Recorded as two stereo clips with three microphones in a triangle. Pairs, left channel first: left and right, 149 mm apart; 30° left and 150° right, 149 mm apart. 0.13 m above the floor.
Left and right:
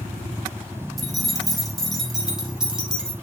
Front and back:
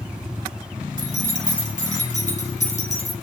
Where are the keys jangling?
Straight ahead, 4.5 m; by 3.1 s 5° right, 3.5 m.